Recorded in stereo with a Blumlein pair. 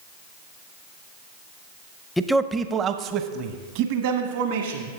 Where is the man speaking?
5° left, 0.6 m; by 4.9 s 55° right, 2 m.